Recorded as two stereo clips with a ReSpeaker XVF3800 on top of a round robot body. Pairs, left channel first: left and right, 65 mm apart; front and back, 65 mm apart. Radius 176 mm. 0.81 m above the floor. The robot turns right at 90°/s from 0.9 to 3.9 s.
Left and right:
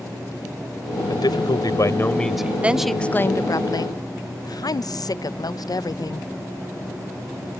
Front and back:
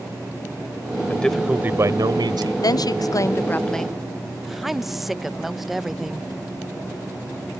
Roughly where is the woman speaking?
Ahead.